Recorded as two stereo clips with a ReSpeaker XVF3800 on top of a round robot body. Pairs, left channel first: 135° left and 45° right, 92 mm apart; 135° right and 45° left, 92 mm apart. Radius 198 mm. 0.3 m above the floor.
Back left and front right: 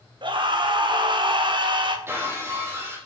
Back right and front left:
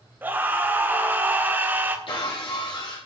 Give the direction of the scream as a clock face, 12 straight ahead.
1 o'clock.